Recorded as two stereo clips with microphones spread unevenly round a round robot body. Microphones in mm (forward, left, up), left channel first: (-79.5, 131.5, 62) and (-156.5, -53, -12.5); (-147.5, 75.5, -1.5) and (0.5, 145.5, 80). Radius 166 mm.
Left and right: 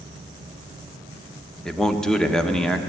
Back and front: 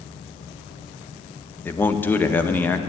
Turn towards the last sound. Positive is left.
turn(degrees=180)